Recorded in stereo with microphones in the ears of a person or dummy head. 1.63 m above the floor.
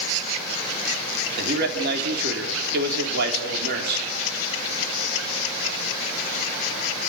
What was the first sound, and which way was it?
A man speaking, 55° right (ahead or behind).